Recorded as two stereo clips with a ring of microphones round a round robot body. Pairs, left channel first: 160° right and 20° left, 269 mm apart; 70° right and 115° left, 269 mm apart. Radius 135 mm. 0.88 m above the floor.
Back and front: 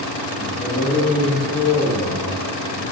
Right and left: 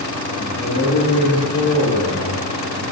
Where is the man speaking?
100° right, 1.4 m.